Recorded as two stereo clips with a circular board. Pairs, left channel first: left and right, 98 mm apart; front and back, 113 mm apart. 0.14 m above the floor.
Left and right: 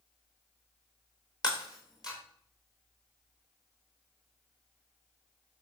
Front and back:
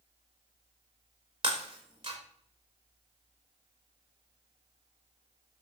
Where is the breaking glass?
135° left, 5 m.